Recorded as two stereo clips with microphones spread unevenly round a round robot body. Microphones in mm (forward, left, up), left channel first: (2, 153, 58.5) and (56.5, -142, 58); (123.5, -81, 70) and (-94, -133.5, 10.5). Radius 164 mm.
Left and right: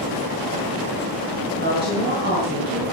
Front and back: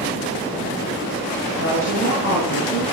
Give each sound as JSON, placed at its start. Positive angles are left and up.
{"t": 1.6, "sound": "a woman speaking", "azimuth_deg": -20, "distance_m": 6.0}